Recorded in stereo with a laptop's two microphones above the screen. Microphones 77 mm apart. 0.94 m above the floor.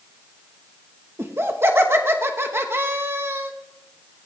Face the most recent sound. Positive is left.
turn(degrees=-30)  # may be behind; listen again after turning